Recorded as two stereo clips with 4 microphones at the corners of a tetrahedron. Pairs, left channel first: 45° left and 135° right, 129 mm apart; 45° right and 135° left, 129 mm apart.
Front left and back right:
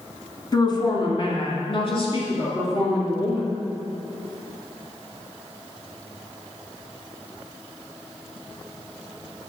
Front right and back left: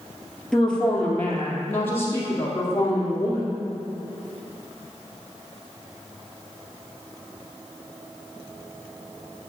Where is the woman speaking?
35° left, 1.5 m; by 3.6 s 20° left, 3.5 m.